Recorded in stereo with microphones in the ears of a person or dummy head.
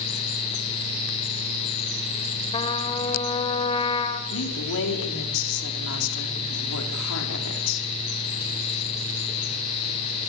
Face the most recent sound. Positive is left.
turn(degrees=75)  # may be behind; listen again after turning